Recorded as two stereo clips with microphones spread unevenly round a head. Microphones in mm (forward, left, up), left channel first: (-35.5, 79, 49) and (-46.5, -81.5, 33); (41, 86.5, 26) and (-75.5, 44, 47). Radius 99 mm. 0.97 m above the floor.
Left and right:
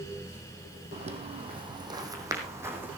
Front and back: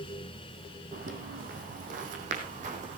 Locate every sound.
0.9 s footsteps: 140° right, 2.5 m; by 3.0 s 175° right, 3.5 m